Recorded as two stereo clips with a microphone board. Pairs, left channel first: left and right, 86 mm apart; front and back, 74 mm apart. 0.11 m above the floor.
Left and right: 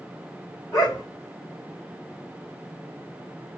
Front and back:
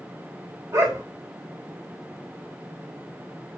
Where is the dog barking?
140° left, 1.5 m.